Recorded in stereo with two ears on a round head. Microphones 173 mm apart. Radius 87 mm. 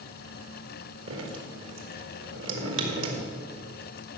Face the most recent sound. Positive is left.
turn(degrees=-65)  # may be behind; listen again after turning